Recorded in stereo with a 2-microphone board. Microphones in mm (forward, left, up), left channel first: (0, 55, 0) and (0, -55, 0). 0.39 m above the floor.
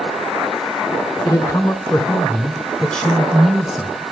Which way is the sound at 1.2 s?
30° left (ahead or behind).